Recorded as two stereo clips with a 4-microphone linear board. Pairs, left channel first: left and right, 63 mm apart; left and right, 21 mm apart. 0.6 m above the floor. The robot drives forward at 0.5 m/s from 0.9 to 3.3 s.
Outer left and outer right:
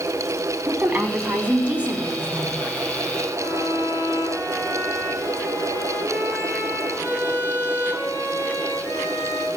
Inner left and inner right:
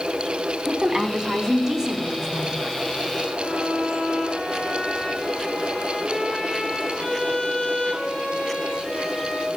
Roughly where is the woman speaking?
Right.